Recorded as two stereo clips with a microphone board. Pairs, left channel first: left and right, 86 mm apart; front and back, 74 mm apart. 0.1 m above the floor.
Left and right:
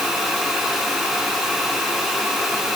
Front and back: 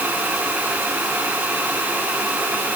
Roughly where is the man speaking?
No man speaking in this recording.